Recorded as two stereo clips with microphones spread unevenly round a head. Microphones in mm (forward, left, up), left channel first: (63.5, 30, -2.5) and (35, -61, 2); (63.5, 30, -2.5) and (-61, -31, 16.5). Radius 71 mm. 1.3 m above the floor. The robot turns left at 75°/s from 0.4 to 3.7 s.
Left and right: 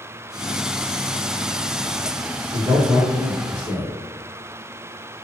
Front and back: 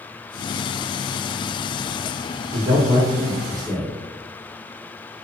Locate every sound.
2.5 s a man speaking: 150° right, 1.0 m; by 3.9 s 120° left, 1.0 m